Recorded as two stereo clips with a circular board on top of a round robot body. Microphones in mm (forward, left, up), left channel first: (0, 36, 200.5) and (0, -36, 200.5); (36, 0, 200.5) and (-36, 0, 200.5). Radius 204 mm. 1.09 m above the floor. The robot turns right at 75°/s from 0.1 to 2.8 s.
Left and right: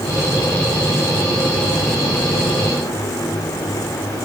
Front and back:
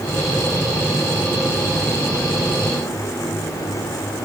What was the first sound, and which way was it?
Only background noise.